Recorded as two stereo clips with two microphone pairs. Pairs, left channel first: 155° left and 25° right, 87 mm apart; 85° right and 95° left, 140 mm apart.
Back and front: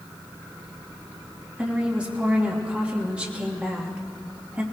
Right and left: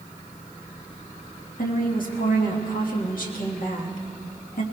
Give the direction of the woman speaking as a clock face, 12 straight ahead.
3 o'clock.